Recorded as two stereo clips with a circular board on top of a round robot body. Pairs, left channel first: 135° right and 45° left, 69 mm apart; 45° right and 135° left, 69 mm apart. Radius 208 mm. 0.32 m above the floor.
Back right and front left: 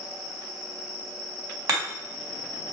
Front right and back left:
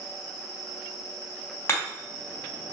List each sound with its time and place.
1.7 s hammering: 10° left, 3.5 m